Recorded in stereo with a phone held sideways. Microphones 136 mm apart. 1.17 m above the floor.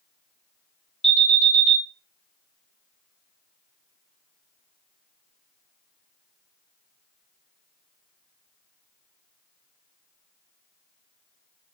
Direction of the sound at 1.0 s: 5° left (ahead or behind).